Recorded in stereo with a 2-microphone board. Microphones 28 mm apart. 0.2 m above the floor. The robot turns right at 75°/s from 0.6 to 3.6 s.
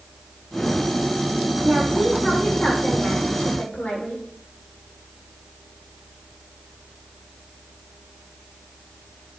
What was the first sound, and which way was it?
A woman speaking, 40° right.